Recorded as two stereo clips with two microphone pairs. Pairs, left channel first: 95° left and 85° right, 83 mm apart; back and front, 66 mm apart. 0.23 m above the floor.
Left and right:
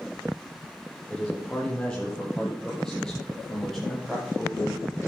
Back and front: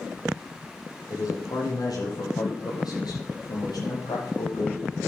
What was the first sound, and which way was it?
A man speaking, 170° left.